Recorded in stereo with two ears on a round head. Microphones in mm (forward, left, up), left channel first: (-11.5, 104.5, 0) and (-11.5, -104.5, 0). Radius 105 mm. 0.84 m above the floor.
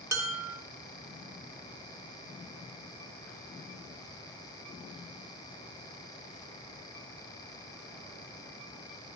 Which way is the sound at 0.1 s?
15° right (ahead or behind).